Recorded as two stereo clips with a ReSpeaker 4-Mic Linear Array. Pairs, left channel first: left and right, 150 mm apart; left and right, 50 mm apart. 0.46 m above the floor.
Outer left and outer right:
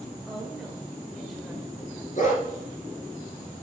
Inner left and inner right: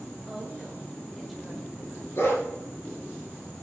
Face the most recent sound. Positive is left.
turn(degrees=55)  # may be behind; listen again after turning